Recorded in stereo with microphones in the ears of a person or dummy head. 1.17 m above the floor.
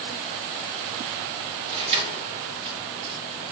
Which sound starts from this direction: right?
Keys jangling, at 1.7 s.